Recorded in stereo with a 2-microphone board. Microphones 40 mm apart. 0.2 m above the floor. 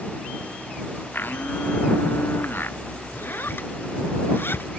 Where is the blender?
60° left (ahead or behind).